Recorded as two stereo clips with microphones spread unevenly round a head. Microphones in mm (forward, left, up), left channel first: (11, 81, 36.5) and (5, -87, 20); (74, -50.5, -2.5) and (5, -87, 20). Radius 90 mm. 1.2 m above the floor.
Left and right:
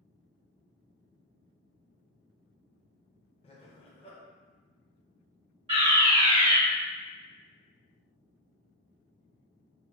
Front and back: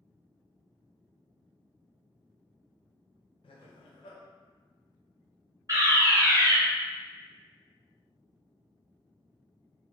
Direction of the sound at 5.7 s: 115° right.